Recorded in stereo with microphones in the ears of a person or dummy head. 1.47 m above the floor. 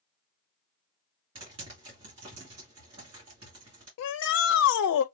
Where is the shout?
80° left, 0.5 m.